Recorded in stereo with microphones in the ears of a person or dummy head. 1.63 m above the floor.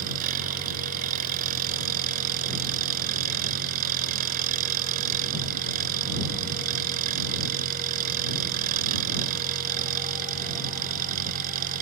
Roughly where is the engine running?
Right.